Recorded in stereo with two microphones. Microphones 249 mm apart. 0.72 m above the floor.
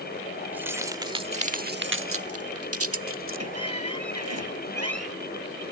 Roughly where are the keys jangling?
Centre.